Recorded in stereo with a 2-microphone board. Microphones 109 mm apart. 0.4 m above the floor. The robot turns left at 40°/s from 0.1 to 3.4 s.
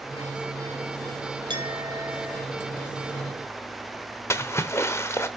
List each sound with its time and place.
1.5 s a clink: 125° right, 1.4 m; by 2.5 s 165° right, 1.4 m
4.3 s a splash: 25° left (ahead or behind), 0.9 m